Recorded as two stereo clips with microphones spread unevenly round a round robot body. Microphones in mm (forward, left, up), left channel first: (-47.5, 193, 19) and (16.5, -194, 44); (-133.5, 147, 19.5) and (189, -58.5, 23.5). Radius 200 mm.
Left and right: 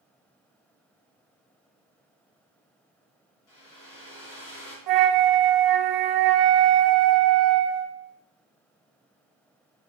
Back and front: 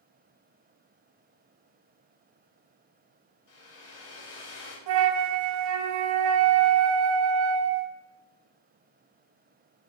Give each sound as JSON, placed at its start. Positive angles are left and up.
{"t": 3.5, "sound": "a hair dryer", "azimuth_deg": 140, "distance_m": 3.5}
{"t": 4.9, "sound": "a flute", "azimuth_deg": -40, "distance_m": 0.9}